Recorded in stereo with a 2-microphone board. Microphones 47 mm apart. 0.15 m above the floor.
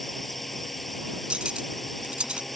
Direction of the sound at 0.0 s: 5° left (ahead or behind).